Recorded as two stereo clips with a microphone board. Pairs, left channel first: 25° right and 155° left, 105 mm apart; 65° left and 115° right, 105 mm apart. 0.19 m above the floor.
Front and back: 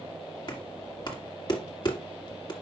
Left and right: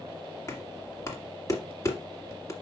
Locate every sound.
0.5 s knocking: 15° left, 2.0 m